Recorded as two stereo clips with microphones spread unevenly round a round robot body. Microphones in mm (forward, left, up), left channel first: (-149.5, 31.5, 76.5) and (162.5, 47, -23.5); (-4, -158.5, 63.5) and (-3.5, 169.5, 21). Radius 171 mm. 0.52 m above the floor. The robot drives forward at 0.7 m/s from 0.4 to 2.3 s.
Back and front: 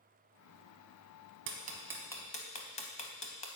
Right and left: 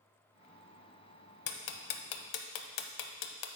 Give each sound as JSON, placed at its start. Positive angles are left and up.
{"t": 1.5, "sound": "ticking", "azimuth_deg": -60, "distance_m": 0.7}